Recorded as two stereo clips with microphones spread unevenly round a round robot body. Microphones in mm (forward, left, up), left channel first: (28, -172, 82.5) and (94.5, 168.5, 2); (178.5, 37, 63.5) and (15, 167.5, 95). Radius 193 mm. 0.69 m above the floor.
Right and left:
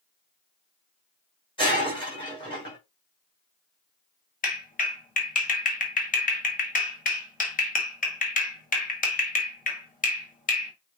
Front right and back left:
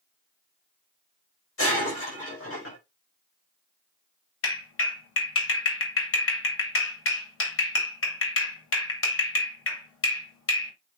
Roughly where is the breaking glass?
Ahead right.